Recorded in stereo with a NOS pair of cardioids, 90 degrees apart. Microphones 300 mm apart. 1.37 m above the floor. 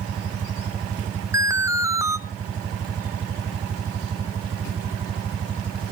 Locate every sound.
1.3 s an alarm: 10° right, 1.0 m